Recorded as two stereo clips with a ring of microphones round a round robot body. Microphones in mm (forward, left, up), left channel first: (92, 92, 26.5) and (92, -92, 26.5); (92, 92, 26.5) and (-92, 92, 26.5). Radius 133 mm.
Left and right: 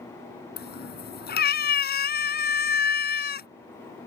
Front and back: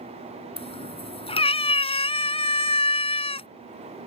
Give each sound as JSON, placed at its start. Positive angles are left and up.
{"t": 0.6, "sound": "a cat meowing", "azimuth_deg": 60}